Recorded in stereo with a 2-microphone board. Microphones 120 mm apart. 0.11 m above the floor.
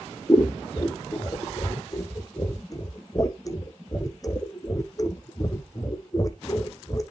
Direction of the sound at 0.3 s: 30° left (ahead or behind).